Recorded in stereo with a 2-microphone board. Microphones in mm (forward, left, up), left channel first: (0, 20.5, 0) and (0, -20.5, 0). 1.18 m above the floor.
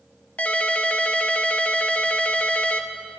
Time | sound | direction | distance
0.4 | a ringtone | 35° left (ahead or behind) | 0.7 m